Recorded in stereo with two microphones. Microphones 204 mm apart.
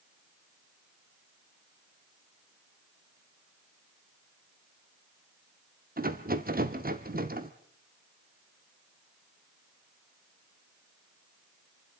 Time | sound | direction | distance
6.0 | a rattle | 45° right (ahead or behind) | 1.2 m